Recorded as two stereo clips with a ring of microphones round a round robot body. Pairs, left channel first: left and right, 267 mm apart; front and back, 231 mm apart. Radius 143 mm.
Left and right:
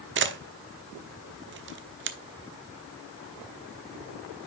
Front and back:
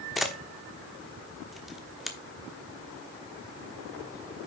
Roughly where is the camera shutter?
Right.